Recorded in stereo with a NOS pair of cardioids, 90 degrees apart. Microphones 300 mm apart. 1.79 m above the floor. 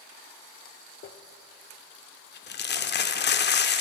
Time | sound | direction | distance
1.0 | crumpling | 35° left | 0.5 m